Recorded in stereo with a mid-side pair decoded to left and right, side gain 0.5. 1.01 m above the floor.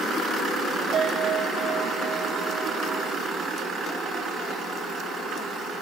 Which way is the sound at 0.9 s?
55° right.